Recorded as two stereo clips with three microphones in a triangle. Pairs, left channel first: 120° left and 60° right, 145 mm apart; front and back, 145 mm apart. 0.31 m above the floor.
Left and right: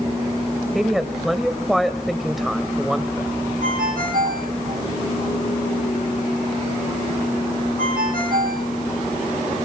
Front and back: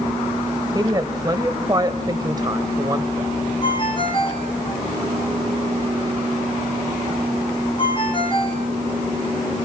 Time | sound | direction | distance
0.8 | a woman speaking | 150° right | 1.2 m
3.6 | a ringtone | 55° right | 5 m